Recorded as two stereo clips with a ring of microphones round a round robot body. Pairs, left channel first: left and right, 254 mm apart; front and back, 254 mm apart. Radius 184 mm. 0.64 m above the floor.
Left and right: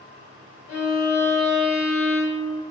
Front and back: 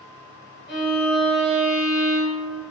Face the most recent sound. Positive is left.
turn(degrees=40)